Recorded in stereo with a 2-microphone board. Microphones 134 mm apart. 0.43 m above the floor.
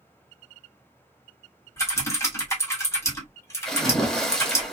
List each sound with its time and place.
1.8 s typing on a keyboard: 20° left (ahead or behind), 1.2 m
3.6 s a splash: 5° left (ahead or behind), 1.1 m